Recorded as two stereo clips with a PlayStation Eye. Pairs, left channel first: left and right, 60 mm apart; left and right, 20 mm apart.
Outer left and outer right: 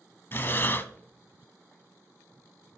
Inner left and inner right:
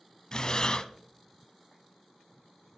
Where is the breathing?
40° left (ahead or behind), 0.6 m.